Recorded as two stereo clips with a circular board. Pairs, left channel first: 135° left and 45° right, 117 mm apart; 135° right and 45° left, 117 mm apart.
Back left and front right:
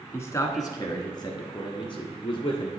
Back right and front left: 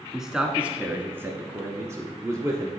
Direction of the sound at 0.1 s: 125° left.